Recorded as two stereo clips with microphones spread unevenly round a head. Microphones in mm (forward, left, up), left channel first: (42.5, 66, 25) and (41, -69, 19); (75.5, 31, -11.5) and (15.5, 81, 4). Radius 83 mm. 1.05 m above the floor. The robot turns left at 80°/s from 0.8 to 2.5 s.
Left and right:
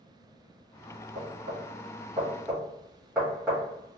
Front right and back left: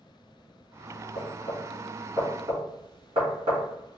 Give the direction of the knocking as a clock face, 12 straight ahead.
2 o'clock.